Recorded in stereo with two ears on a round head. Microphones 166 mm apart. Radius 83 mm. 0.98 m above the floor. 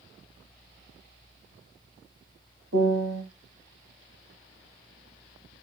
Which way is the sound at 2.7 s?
70° right (ahead or behind).